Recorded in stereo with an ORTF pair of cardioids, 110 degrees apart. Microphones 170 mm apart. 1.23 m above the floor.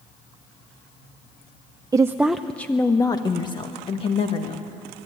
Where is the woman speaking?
20° right, 0.6 m; by 4.7 s 40° left, 1.8 m.